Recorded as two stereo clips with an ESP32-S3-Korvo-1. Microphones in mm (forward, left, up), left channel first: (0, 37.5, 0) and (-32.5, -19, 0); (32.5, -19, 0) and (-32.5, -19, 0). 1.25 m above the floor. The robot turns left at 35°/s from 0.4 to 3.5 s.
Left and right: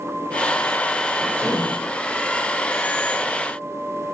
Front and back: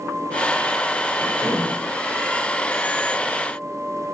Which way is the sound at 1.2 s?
25° right.